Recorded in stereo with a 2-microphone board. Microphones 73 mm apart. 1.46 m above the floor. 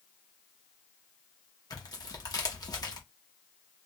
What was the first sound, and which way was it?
Tearing paper, 60° left (ahead or behind).